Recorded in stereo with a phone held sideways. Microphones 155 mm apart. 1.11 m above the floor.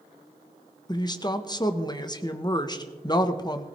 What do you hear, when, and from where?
0.9 s a woman speaking: 25° left (ahead or behind), 1.0 m